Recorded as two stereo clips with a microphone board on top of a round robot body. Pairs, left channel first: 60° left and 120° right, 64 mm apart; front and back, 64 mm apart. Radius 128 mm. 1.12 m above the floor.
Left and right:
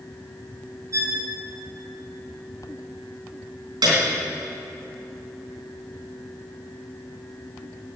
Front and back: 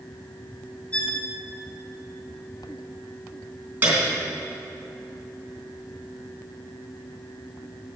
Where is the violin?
75° right, 1.2 m.